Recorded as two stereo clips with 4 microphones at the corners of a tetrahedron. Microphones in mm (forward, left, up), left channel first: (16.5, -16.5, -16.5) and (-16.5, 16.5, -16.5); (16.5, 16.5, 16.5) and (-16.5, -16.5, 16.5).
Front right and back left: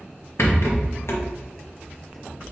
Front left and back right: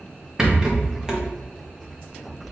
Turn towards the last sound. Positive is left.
turn(degrees=-60)